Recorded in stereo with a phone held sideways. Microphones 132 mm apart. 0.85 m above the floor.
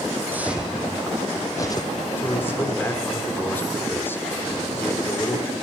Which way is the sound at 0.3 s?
15° right (ahead or behind).